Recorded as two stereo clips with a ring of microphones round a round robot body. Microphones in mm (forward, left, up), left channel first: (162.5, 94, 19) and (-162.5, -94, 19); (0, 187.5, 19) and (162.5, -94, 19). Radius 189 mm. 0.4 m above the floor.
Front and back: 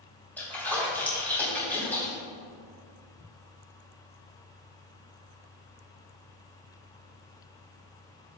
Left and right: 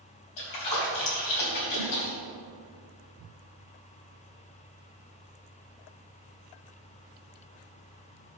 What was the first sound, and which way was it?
A splash, 115° left.